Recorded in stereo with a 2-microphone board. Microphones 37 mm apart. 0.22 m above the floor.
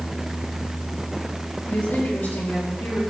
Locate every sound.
1.7 s a woman speaking: 70° left (ahead or behind), 5 m